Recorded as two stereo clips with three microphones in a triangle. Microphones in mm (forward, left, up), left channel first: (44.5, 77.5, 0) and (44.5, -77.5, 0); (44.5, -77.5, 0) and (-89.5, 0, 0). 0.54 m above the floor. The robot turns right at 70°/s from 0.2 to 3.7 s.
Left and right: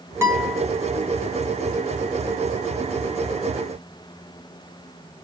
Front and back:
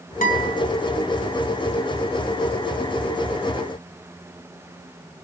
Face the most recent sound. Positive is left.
turn(degrees=-135)